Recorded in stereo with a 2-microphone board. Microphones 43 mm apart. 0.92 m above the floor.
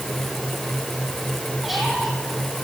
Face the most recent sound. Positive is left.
turn(degrees=-5)  # may be behind; listen again after turning